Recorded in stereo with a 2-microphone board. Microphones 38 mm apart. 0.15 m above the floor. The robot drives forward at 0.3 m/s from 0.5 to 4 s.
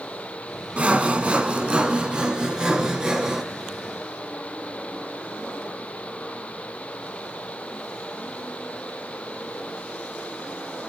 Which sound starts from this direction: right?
Sawing, at 0.8 s.